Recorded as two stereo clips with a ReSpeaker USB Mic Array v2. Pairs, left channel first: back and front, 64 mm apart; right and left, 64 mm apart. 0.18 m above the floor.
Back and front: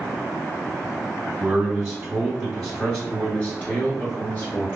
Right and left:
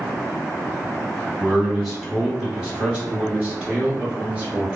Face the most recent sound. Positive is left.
turn(degrees=150)